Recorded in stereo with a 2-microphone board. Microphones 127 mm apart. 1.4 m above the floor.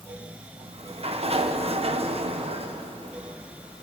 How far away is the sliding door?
About 0.9 m.